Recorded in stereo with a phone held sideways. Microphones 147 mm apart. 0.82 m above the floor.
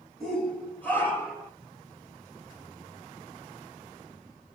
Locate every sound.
0.2 s a shout: 5° left (ahead or behind), 3 m; by 1.5 s 20° left (ahead or behind), 3.5 m